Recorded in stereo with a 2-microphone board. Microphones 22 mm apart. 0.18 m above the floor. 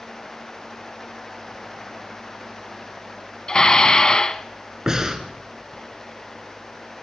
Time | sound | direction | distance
3.5 | dishes clattering | 35° left (ahead or behind) | 0.9 m
4.9 | breathing | 25° right (ahead or behind) | 2.5 m